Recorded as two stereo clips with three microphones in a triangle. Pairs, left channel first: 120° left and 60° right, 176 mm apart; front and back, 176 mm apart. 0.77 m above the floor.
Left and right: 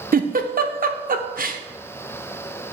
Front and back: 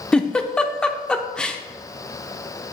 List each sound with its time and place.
0.1 s a giggle: 85° right, 0.6 m